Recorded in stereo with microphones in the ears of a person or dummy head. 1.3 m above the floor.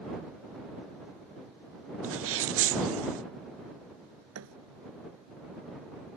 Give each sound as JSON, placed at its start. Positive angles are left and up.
{"t": 2.0, "sound": "a sneeze", "side_deg": -65}
{"t": 4.3, "sound": "a thud", "side_deg": -80}